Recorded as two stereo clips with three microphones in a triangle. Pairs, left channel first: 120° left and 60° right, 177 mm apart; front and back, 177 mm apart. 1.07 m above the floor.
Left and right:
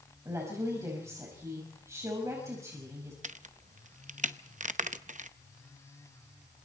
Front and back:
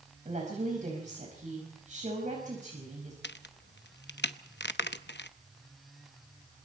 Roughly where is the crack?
Ahead.